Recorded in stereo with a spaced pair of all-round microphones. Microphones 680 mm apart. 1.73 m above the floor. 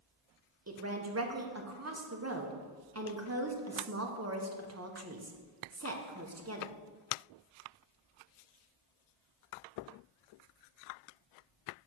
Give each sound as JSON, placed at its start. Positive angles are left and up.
{"t": 0.7, "sound": "a woman speaking", "side_deg": -20, "distance_m": 1.0}